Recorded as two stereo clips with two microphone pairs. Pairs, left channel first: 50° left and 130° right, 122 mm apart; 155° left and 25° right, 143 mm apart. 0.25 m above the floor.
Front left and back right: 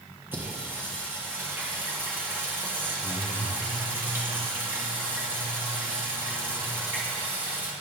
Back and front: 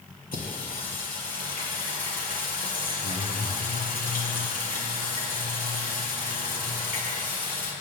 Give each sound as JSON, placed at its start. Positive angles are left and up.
{"t": 0.3, "sound": "singing", "azimuth_deg": 155, "distance_m": 4.0}